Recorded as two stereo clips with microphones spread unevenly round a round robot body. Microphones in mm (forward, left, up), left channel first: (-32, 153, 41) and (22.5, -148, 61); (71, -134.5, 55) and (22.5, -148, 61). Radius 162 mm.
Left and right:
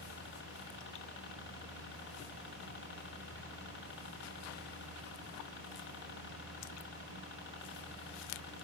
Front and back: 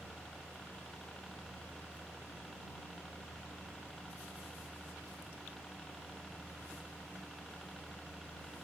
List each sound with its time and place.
0.0 s a helicopter: 90° left